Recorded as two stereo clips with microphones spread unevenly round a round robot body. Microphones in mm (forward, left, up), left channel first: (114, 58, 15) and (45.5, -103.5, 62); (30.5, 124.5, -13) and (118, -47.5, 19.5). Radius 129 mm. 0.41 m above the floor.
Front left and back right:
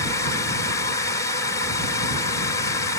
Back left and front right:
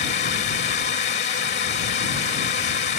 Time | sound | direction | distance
0.0 | a drone | 115° left | ?